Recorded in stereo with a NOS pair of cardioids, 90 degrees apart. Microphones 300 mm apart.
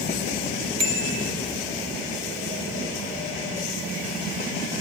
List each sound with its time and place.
0.8 s a bicycle bell: 65° right, 4 m